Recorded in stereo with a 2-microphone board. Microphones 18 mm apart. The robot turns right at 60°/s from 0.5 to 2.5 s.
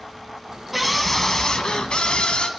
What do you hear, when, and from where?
0.7 s a scream: 5° right, 2.5 m; by 2.5 s 100° left, 2.5 m